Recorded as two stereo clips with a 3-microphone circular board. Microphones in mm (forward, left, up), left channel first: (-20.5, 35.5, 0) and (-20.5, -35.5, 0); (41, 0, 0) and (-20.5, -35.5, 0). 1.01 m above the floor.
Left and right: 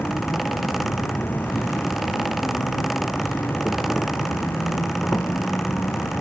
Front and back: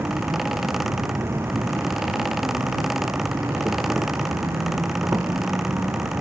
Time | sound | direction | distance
0.0 | an insect | 155° left | ?